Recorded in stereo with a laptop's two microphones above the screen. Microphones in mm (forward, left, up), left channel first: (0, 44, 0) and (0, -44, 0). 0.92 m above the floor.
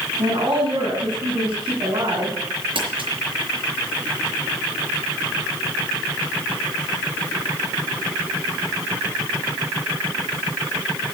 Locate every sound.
0.2 s a woman speaking: 60° right (ahead or behind), 6.5 m
2.8 s crumpling: 75° right (ahead or behind), 4.5 m